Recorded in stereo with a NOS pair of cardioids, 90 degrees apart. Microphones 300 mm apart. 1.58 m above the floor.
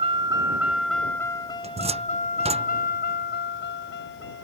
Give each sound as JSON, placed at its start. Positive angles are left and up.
{"t": 0.0, "sound": "a vehicle", "azimuth_deg": -20}
{"t": 1.6, "sound": "a cupboard door", "azimuth_deg": -20}